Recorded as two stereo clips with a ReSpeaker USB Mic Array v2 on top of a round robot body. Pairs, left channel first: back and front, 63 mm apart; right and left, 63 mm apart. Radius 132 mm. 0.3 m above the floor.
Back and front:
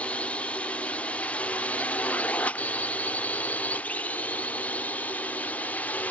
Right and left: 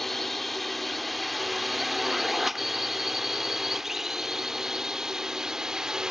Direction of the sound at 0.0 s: 175° right.